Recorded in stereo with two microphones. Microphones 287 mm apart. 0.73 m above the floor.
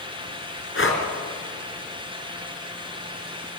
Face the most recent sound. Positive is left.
turn(degrees=45)  # may be behind; listen again after turning